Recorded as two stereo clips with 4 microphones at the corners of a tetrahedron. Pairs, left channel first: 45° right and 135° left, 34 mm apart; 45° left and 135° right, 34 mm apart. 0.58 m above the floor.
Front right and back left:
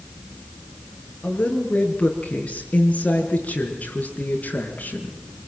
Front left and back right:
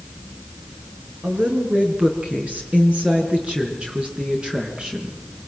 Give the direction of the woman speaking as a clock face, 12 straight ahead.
3 o'clock.